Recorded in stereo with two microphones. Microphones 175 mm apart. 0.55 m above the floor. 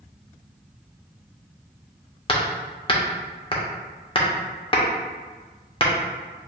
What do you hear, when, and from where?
2.3 s hammering: 30° left (ahead or behind), 0.8 m